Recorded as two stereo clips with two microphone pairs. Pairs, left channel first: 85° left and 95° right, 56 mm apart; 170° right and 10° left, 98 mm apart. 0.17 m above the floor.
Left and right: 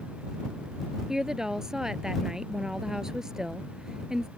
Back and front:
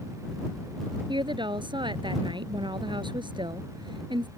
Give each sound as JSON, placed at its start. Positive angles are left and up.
{"t": 1.1, "sound": "a woman speaking", "azimuth_deg": -15}